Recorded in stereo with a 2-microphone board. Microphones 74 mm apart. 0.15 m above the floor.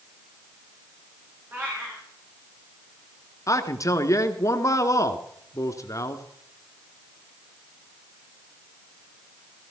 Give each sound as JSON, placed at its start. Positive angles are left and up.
{"t": 1.5, "sound": "a cat meowing", "side_deg": -25, "distance_m": 7.5}
{"t": 3.5, "sound": "a man speaking", "side_deg": 45, "distance_m": 1.4}